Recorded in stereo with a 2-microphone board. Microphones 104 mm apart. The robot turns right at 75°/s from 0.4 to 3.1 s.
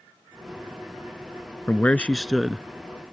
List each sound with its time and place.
1.7 s a man speaking: 20° left (ahead or behind); by 2.6 s 10° right (ahead or behind)